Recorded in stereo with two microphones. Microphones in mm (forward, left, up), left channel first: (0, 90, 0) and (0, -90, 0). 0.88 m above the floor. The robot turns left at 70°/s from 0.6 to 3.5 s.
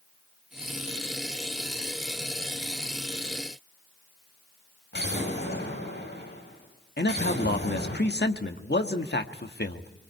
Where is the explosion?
70° left (ahead or behind), 6.5 m.